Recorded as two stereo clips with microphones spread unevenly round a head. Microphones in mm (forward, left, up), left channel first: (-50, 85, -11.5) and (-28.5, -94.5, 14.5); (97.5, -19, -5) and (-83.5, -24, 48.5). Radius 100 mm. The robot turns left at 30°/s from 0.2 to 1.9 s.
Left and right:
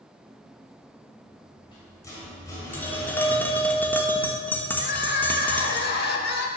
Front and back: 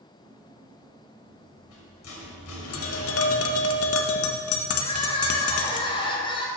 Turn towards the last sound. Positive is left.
turn(degrees=75)